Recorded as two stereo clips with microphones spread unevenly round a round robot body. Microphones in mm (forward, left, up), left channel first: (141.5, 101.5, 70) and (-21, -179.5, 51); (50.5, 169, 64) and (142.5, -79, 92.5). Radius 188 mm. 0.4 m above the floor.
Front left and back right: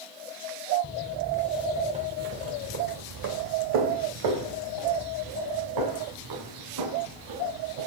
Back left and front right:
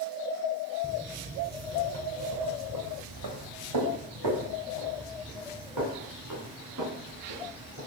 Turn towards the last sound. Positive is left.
turn(degrees=-115)